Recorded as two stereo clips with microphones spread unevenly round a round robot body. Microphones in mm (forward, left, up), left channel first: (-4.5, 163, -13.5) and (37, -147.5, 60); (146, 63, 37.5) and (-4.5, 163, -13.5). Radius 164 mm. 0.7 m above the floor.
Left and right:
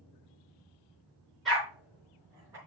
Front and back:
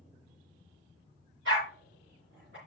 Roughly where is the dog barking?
Behind.